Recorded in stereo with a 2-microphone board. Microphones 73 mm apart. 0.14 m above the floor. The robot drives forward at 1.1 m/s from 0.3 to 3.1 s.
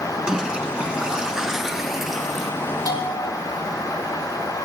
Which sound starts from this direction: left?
A bell, at 2.9 s.